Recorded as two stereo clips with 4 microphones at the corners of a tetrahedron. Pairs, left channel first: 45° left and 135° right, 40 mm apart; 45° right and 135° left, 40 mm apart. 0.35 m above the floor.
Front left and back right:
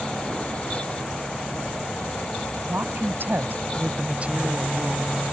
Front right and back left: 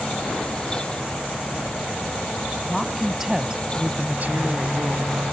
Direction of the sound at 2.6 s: 130° right.